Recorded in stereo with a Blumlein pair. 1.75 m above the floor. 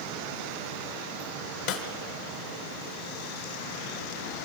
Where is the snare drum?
45° left, 1.5 m.